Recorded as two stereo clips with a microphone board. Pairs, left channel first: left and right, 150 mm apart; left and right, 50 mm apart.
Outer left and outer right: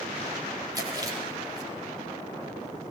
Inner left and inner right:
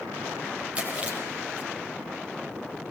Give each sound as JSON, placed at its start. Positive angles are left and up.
{"t": 0.8, "sound": "chewing", "side_deg": -25, "distance_m": 6.0}